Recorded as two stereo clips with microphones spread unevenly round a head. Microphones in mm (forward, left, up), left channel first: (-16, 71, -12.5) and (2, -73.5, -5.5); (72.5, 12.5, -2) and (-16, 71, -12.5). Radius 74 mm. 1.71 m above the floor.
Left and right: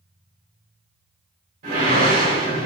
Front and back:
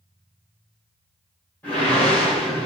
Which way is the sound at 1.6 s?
110° right.